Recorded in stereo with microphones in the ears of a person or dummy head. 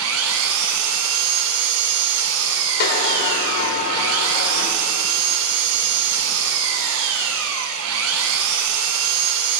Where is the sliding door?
55° left (ahead or behind), 1.9 m.